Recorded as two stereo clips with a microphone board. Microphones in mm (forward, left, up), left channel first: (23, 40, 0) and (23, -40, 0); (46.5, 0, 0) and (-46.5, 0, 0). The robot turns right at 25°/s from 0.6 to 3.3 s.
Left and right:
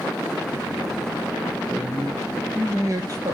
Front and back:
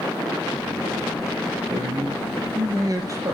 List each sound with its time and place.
1.7 s a man speaking: 165° right, 3 m; by 3.4 s 125° right, 3 m